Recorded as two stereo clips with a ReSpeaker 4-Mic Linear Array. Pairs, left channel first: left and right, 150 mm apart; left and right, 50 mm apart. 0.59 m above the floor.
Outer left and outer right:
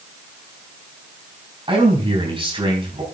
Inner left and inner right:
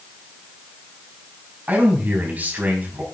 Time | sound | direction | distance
1.7 | a man speaking | 35° right (ahead or behind) | 4.5 m